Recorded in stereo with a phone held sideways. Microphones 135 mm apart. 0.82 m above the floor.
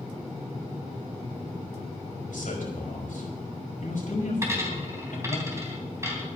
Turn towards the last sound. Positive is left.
turn(degrees=-20)  # may be behind; listen again after turning